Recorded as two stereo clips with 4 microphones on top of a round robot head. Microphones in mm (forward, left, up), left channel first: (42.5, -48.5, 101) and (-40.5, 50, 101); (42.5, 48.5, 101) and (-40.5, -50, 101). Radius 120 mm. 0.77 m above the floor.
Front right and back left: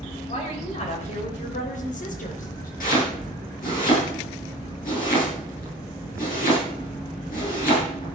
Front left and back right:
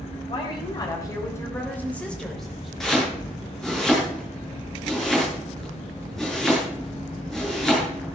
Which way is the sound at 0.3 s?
5° right.